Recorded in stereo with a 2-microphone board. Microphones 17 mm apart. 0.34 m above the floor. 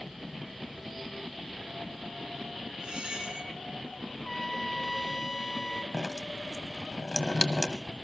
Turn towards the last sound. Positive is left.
turn(degrees=40)  # may be behind; listen again after turning